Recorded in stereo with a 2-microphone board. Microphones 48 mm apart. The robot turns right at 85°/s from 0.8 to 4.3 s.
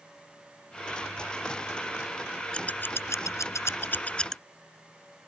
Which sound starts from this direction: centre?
Scissors, at 2.5 s.